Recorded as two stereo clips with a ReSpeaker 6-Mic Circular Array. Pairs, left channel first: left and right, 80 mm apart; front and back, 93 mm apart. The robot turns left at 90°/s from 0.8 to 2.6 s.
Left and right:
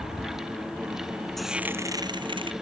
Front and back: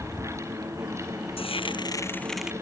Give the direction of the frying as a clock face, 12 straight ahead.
12 o'clock.